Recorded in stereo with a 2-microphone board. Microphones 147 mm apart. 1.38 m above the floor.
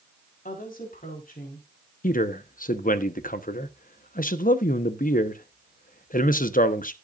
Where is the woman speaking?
80° left, 4 m.